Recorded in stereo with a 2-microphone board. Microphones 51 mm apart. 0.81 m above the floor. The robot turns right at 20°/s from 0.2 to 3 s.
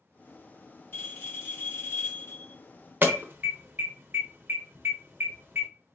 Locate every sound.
0.9 s a bell: 50° left, 1.9 m; by 2.6 s 85° left, 1.9 m
3.0 s an alarm: 40° right (ahead or behind), 0.8 m